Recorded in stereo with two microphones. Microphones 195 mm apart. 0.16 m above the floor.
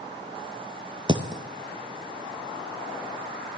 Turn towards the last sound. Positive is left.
turn(degrees=-25)  # may be behind; listen again after turning